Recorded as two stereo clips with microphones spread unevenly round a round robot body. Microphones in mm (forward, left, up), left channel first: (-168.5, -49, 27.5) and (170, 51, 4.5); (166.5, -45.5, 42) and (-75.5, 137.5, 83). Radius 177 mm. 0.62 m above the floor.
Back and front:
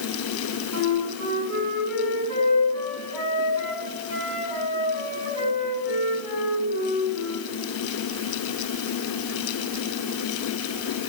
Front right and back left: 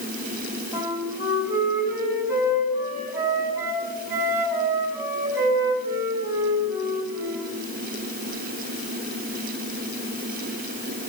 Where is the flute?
60° left, 5 m.